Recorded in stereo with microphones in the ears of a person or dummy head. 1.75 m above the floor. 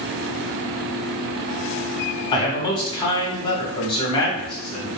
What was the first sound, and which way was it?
A man speaking, 25° left (ahead or behind).